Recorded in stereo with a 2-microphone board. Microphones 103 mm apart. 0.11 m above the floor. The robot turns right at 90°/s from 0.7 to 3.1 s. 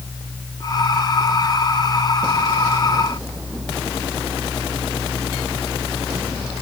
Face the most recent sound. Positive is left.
No sound to turn to.